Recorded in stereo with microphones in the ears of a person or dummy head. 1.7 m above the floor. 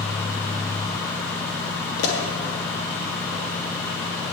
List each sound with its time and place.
2.0 s a pop: 60° left (ahead or behind), 2.5 m